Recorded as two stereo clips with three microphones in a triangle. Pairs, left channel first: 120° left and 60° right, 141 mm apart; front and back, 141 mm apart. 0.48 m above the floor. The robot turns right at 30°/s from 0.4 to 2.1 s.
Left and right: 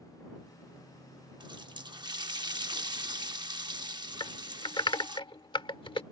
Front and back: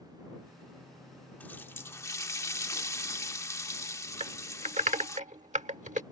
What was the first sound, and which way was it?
A running tap, 65° right.